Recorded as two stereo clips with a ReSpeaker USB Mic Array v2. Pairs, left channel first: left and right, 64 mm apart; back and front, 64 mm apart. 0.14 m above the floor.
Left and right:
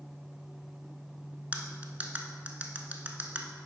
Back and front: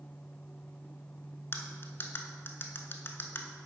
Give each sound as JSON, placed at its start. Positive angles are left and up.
{"t": 1.5, "sound": "cutlery clinking", "azimuth_deg": -145, "distance_m": 0.8}